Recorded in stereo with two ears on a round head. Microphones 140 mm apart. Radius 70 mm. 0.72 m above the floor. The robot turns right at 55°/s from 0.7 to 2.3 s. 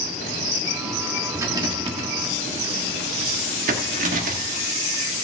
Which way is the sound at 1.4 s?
15° right (ahead or behind).